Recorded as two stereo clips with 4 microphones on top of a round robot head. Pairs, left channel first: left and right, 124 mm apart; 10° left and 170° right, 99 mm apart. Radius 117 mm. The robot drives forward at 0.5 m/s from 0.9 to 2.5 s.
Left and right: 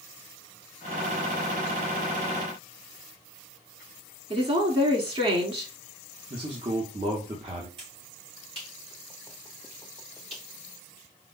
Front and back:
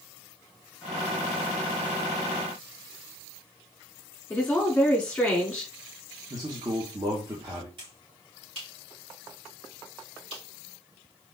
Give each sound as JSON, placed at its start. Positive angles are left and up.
{"t": 4.3, "sound": "a woman speaking", "azimuth_deg": -65, "distance_m": 1.7}
{"t": 6.3, "sound": "a man speaking", "azimuth_deg": -125, "distance_m": 0.9}
{"t": 7.8, "sound": "a finger snap", "azimuth_deg": -135, "distance_m": 3.0}